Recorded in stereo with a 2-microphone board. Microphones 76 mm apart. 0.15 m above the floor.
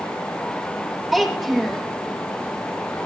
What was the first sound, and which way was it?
A child speaking, 5° right (ahead or behind).